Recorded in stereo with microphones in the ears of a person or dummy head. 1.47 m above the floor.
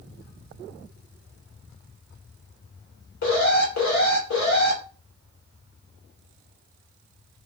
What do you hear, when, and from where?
3.2 s an alarm: 65° left (ahead or behind), 1.9 m